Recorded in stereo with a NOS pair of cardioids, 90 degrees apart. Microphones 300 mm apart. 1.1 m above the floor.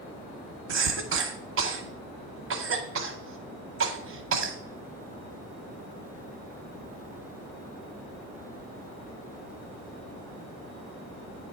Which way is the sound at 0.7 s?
45° right.